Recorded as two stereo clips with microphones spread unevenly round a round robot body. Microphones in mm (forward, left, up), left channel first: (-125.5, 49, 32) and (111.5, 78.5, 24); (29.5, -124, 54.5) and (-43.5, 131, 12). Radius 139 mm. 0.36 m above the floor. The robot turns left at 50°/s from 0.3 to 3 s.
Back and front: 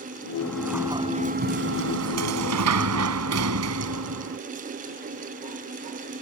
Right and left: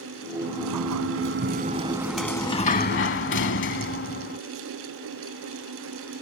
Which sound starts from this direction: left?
A sliding door, at 0.4 s.